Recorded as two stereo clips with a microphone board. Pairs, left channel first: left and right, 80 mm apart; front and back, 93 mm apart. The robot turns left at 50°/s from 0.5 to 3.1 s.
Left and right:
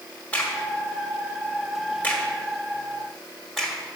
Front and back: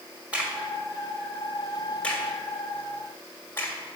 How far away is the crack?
About 1.5 m.